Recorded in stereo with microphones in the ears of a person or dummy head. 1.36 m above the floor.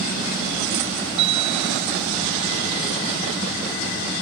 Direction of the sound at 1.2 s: 80° right.